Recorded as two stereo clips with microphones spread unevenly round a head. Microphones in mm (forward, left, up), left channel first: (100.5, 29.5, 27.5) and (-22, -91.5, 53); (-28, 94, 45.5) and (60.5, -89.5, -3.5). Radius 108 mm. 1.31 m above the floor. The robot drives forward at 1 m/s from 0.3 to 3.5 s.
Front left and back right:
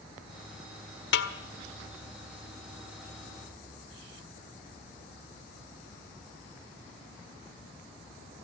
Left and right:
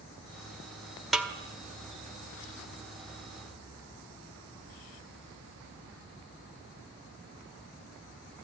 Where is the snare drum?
35° left, 1.6 m; by 1.3 s 40° left, 1.5 m.